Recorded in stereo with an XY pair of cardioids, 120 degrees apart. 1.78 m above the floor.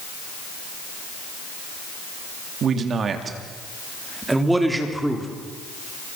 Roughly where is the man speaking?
Ahead right.